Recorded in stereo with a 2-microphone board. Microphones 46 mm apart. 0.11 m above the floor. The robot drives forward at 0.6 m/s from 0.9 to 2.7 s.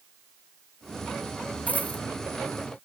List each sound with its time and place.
1.7 s a dropped coin: 35° left (ahead or behind)